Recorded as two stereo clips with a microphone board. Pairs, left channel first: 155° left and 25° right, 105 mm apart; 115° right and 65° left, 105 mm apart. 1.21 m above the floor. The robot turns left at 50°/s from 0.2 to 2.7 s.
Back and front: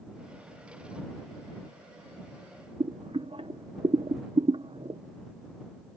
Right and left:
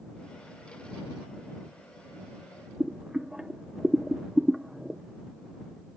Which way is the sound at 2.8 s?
15° right.